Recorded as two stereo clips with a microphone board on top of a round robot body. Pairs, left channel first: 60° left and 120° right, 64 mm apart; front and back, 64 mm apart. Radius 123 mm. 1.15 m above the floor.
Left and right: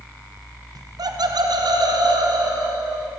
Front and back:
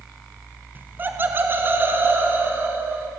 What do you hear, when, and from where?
0.8 s laughter: 120° right, 1.7 m; by 3.1 s 125° right, 5.5 m